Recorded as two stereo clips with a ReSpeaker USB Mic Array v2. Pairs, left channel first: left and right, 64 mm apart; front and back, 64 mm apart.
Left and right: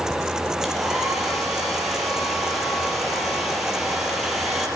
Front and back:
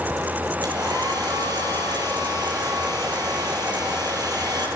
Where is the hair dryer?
175° right, 8.5 m.